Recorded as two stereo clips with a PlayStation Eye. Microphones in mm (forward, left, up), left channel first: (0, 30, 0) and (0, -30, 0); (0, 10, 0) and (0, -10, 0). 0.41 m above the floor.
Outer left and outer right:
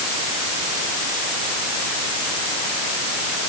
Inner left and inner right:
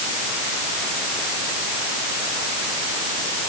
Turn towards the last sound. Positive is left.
No sound to turn to.